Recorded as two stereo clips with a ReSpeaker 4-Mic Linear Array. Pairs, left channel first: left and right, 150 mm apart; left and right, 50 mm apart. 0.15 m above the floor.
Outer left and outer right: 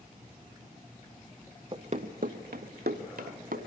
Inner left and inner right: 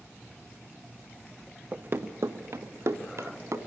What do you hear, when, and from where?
1.7 s running footsteps: 35° right (ahead or behind), 0.8 m; by 3.6 s 75° right (ahead or behind), 1.9 m